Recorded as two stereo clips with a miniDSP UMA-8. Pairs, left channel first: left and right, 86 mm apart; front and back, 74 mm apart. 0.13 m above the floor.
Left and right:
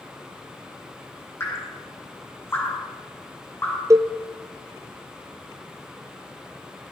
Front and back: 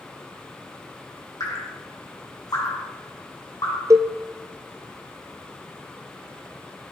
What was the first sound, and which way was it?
Dripping, 30° left.